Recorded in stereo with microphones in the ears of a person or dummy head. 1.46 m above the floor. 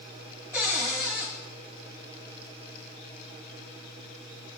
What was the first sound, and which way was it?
A cupboard door, 10° right (ahead or behind).